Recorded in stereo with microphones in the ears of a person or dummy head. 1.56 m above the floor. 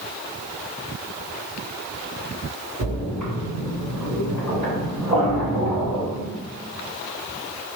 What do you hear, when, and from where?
2.8 s a splash: 30° right (ahead or behind), 1.9 m